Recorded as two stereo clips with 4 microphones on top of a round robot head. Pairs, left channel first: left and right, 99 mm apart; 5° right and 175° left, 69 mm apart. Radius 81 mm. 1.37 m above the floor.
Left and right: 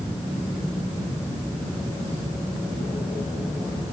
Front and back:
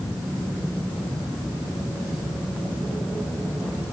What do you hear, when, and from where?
Only background noise.